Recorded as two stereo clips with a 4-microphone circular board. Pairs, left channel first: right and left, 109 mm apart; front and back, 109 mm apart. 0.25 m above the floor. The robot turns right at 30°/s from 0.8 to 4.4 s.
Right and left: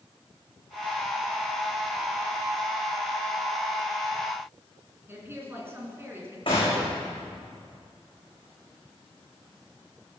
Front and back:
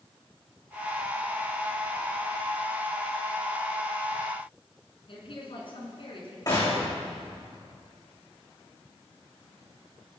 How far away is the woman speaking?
About 3 m.